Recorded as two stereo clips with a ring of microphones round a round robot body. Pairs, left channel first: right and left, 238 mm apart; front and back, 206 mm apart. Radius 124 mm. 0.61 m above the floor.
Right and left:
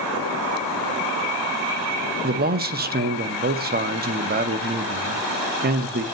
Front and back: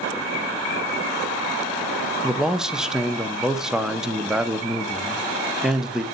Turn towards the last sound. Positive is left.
turn(degrees=95)